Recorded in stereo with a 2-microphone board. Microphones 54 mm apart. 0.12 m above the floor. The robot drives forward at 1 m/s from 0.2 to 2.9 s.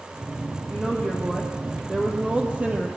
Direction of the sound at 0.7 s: 15° right (ahead or behind).